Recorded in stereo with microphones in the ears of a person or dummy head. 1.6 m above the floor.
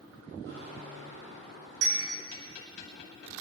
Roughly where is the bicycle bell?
Right.